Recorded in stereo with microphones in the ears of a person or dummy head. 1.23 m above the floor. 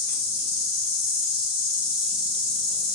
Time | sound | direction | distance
0.0 | an insect | 45° left (ahead or behind) | 0.8 m